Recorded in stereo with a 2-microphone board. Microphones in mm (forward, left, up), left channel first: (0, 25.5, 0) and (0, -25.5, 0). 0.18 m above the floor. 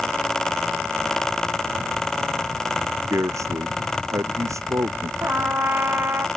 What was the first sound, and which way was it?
A man speaking, 75° right (ahead or behind).